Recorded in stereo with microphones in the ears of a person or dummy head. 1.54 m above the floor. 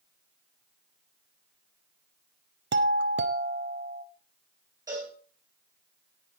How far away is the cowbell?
About 4 m.